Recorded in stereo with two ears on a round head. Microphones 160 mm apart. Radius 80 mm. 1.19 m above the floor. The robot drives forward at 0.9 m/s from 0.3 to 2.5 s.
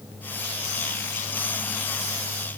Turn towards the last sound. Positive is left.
No sound to turn to.